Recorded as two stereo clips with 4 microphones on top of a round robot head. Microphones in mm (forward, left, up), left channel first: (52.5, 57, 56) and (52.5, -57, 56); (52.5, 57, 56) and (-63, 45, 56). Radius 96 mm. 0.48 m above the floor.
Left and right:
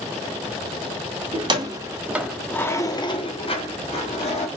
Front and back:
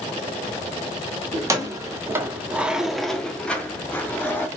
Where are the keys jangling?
120° right, 0.7 m; by 4.5 s 80° left, 1.2 m.